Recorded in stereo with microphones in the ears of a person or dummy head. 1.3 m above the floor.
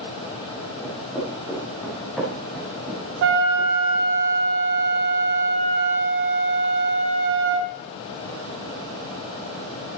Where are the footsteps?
15° left (ahead or behind), 6 m; by 4.1 s 10° right (ahead or behind), 4 m.